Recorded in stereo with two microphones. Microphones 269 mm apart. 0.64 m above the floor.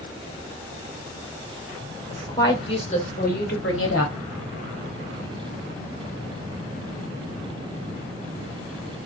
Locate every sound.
2.1 s a woman speaking: 10° left (ahead or behind), 2 m; by 4.1 s 60° left (ahead or behind), 1.1 m